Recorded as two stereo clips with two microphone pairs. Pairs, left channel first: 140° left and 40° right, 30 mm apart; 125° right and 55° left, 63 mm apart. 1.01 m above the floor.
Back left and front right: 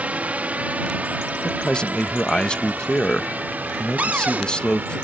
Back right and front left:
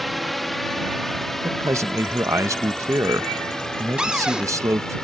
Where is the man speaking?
85° left.